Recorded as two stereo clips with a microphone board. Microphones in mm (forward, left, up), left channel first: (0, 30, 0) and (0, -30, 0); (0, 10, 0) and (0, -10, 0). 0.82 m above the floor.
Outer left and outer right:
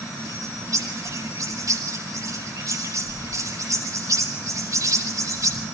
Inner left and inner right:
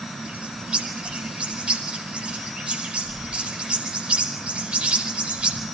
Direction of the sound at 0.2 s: 65° right (ahead or behind).